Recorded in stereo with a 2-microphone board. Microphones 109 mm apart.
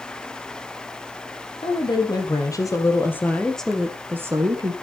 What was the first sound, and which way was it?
A woman speaking, 45° left (ahead or behind).